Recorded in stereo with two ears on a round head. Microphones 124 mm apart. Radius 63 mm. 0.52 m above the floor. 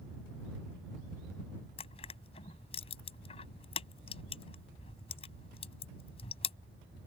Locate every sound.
1.8 s crushing: 45° left (ahead or behind)